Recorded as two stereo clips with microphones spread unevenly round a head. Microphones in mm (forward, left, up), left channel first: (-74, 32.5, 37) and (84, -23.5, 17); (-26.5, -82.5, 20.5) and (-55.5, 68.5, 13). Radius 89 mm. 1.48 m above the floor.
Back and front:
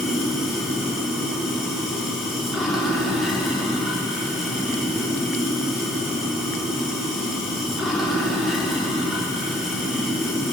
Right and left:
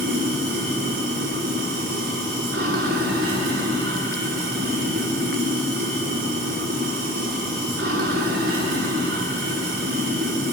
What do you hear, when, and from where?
0.0 s running water: 70° left, 4 m